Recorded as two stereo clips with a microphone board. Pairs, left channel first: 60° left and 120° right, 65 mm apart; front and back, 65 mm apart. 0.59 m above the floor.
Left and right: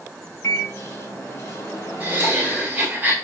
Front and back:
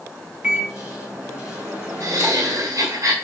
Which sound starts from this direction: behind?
Laughter, at 2.0 s.